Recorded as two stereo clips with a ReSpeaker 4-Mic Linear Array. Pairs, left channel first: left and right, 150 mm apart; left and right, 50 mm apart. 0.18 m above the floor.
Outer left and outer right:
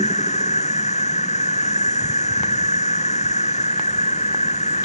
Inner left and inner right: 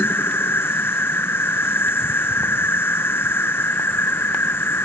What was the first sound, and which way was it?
An insect, 50° left (ahead or behind).